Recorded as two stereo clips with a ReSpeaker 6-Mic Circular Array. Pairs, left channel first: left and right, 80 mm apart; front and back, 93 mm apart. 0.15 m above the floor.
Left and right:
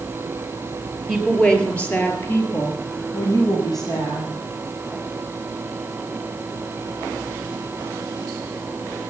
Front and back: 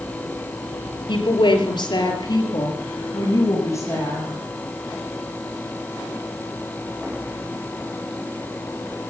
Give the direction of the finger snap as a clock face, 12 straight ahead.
I don't hear a finger snap.